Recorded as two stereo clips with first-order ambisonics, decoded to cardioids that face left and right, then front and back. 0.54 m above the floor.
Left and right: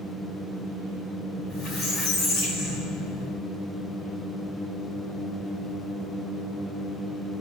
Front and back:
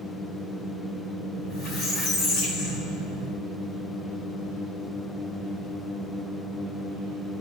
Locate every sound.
1.4 s a squeak: 55° left, 3.5 m